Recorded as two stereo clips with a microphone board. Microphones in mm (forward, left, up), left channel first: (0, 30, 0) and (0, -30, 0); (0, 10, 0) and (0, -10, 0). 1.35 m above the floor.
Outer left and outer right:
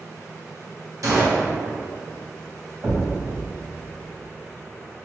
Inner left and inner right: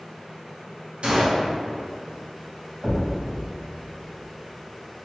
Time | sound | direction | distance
1.0 | a gunshot | 65° right (ahead or behind) | 0.8 m
2.8 | a thud | 65° right (ahead or behind) | 1.9 m